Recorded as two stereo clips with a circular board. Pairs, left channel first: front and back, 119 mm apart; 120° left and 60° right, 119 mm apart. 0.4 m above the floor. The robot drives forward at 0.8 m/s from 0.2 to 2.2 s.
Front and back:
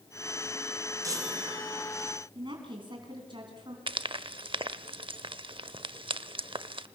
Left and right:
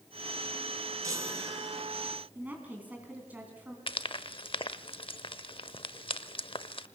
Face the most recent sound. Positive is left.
turn(degrees=150)